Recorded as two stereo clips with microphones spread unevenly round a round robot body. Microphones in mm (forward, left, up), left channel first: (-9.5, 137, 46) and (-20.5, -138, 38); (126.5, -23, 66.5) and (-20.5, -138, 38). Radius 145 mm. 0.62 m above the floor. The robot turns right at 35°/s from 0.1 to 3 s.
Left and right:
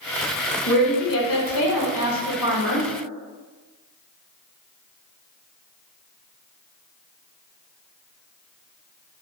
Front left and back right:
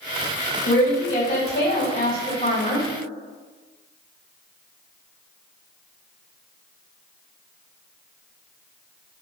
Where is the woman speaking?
45° left, 1.6 m; by 2.9 s 120° left, 1.6 m.